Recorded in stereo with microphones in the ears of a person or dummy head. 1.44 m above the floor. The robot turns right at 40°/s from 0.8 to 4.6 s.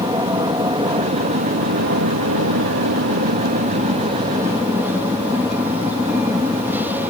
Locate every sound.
0.0 s an aircraft: 160° right; by 7.1 s 5° right